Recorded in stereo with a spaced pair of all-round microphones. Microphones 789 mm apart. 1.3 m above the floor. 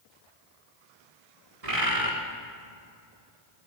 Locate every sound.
1.6 s a bird: 50° right (ahead or behind), 2.5 m